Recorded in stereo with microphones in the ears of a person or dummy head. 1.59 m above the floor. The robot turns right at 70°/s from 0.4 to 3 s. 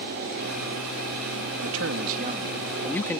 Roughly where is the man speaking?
Right.